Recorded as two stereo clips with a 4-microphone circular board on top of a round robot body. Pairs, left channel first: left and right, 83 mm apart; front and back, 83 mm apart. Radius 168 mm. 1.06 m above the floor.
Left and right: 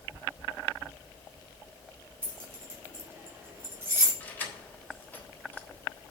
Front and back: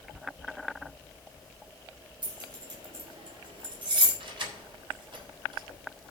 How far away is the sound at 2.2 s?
About 2.5 m.